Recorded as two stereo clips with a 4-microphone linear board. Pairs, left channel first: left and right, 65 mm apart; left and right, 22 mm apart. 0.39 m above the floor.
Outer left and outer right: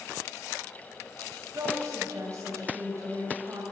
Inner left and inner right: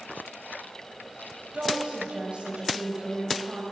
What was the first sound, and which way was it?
A woman speaking, 50° right (ahead or behind).